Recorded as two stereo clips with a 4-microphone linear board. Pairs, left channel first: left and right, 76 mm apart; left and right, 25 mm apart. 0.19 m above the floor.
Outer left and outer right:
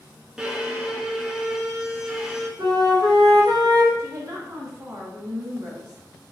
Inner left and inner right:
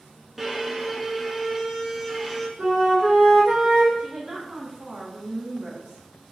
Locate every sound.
0.4 s a violin: 10° right (ahead or behind), 0.8 m
2.6 s a flute: 60° right (ahead or behind), 1.7 m
4.0 s a woman speaking: 45° right (ahead or behind), 1.5 m